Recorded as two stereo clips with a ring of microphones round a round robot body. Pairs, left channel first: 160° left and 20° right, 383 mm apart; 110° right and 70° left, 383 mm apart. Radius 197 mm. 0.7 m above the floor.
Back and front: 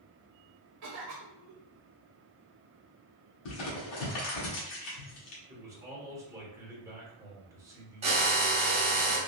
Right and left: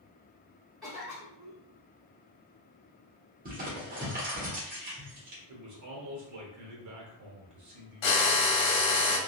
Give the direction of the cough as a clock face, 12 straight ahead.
1 o'clock.